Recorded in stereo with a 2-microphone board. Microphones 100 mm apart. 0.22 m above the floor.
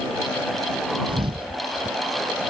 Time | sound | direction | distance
1.1 | a thud | 60° right (ahead or behind) | ?